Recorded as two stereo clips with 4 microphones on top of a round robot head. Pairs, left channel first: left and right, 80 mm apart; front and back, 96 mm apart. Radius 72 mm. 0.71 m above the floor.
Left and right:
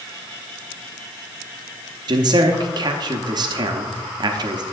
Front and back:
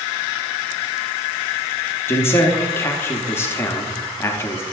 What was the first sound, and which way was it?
A man speaking, 65° right.